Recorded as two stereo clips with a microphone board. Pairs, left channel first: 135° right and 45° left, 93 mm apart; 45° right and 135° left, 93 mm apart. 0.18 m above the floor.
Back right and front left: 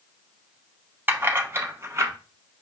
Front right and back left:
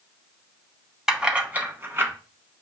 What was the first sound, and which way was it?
Keys jangling, 60° left.